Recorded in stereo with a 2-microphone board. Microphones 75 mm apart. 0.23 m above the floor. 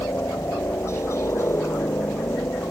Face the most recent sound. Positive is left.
turn(degrees=35)  # may be behind; listen again after turning